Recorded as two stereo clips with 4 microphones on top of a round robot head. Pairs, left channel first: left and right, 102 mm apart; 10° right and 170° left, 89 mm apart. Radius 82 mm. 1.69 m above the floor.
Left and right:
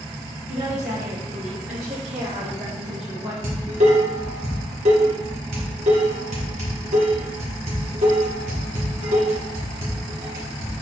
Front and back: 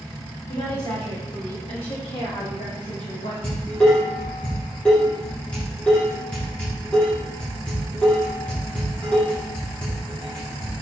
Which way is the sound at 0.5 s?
65° right.